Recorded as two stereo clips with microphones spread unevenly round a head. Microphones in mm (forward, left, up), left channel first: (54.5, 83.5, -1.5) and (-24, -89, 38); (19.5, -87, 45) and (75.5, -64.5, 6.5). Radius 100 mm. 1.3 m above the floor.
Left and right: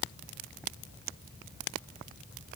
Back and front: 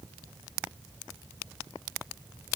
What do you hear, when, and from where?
Only background noise.